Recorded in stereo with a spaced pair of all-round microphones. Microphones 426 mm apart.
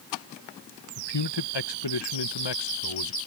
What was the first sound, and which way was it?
A man speaking, 75° left (ahead or behind).